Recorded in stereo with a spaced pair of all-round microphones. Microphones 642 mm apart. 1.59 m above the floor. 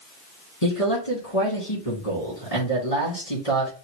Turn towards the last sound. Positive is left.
turn(degrees=70)  # may be behind; listen again after turning